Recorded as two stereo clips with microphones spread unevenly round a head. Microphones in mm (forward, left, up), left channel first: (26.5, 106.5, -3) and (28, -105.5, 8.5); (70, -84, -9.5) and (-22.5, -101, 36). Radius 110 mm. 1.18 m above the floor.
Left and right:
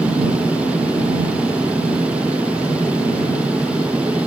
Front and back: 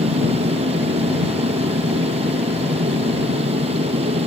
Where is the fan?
175° right.